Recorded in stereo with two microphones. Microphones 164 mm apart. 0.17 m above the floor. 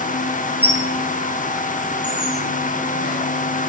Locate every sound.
0.6 s a squeak: 70° left (ahead or behind), 2.5 m